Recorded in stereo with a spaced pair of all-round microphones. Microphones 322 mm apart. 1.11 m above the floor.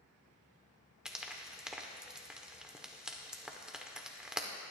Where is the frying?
Centre (ahead or behind), 1.0 m.